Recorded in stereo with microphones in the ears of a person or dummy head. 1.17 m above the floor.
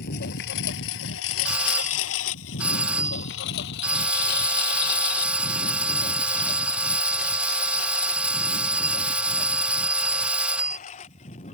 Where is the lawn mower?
60° left (ahead or behind); by 11.6 s 40° left (ahead or behind).